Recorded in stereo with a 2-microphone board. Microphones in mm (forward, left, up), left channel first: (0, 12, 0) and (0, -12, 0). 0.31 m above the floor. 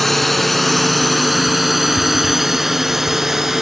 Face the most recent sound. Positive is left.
turn(degrees=-20)  # may be behind; listen again after turning